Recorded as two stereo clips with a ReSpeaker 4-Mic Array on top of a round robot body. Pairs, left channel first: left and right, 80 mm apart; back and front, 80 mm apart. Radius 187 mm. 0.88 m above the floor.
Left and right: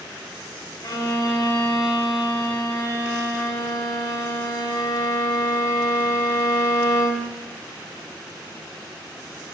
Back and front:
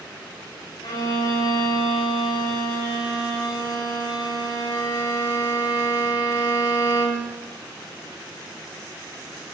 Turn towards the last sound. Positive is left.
turn(degrees=140)